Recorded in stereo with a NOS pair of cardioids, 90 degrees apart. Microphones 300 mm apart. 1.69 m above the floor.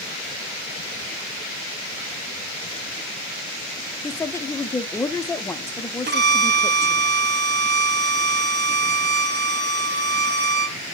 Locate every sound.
4.0 s a woman speaking: 10° left, 0.5 m
6.1 s a violin: 35° right, 0.8 m